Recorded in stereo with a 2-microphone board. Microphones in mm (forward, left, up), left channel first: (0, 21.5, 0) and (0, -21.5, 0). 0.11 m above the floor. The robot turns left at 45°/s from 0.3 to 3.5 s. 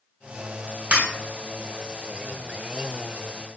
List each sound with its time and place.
0.9 s breaking glass: 25° right (ahead or behind), 1.4 m; by 1.1 s 30° right (ahead or behind), 1.4 m